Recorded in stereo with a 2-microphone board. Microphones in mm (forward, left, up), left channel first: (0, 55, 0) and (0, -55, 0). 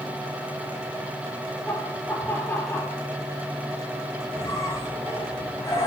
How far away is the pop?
I don't hear a pop.